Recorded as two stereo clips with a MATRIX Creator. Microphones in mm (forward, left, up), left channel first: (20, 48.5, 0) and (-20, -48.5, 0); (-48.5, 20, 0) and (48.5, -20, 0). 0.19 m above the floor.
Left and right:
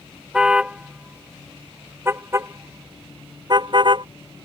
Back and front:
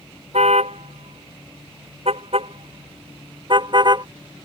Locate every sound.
0.3 s a car horn: 30° right; by 4.1 s 70° right